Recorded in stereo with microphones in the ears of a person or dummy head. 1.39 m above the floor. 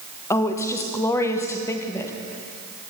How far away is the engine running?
No engine running in this recording.